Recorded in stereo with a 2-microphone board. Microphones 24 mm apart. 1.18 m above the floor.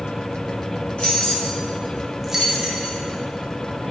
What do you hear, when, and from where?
1.0 s keys jangling: 65° left (ahead or behind), 1.4 m; by 3.0 s 60° right (ahead or behind), 0.9 m